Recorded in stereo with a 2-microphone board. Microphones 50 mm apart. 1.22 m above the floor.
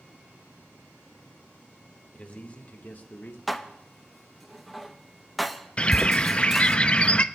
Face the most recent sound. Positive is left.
turn(degrees=25)  # may be behind; listen again after turning